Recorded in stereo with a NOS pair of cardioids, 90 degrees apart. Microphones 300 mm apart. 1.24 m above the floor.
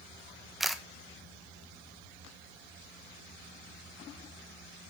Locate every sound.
0.6 s a camera shutter: straight ahead, 1.1 m